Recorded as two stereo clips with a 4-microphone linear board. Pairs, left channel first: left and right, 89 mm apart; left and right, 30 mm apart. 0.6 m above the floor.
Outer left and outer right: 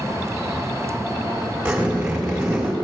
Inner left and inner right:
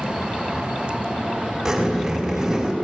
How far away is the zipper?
About 3.5 m.